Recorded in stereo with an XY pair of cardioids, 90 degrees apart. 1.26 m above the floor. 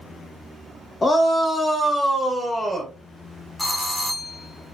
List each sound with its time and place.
1.0 s a shout: 30° left, 0.6 m; by 2.9 s 15° right, 1.3 m
3.6 s a doorbell: 20° left, 1.0 m